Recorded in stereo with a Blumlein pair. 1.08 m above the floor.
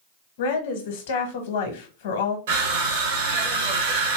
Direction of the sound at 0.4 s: 55° left.